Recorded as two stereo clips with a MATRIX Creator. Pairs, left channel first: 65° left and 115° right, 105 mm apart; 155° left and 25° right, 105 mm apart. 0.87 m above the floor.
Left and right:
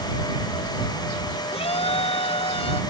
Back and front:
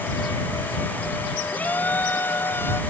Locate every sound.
1.5 s a shout: 80° left; by 2.8 s 90° left